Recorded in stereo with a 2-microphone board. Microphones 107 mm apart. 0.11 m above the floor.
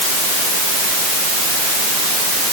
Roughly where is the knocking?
No knocking in this recording.